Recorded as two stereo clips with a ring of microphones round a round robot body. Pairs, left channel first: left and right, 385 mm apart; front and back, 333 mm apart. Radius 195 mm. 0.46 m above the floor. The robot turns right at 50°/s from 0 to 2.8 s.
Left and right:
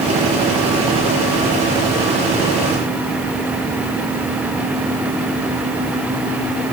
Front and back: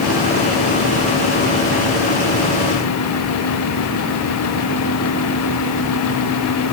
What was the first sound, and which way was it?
Only background noise.